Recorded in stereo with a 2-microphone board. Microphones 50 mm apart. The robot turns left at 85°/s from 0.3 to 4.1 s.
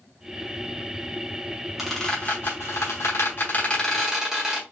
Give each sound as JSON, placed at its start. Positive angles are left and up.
{"t": 1.8, "sound": "a squeak", "side_deg": -5, "distance_m": 1.5}